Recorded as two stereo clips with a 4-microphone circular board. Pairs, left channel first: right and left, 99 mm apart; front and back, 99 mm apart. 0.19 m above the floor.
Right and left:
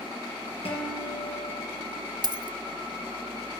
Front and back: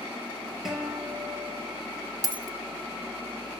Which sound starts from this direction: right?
A guitar, at 0.7 s.